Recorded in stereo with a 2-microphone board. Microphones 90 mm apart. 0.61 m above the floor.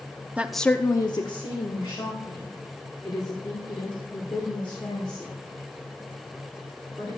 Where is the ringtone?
I don't hear a ringtone.